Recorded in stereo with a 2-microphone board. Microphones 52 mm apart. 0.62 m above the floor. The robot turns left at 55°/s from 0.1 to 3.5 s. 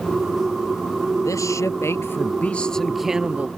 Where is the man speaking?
95° left; by 3.5 s 25° right.